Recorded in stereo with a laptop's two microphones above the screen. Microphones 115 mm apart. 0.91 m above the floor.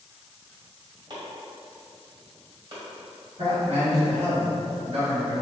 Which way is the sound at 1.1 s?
40° right (ahead or behind).